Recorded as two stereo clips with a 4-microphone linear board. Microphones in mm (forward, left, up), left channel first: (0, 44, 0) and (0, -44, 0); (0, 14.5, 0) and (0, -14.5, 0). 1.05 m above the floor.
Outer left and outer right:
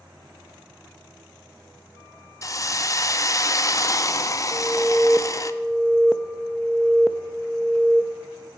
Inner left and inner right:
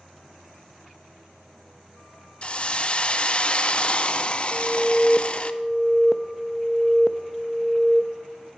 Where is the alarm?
5° right (ahead or behind), 0.6 m.